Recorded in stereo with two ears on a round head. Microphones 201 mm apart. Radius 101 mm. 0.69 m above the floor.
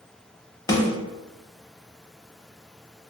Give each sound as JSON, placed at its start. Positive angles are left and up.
{"t": 0.7, "sound": "a snare drum", "side_deg": 20, "distance_m": 0.6}